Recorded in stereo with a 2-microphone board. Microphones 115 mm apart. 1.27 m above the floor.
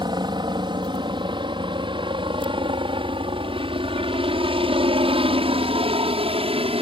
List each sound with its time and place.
0.0 s a helicopter: 40° right (ahead or behind); by 6.8 s 55° right (ahead or behind)